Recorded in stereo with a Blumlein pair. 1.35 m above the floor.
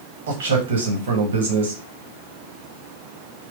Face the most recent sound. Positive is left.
turn(degrees=-60)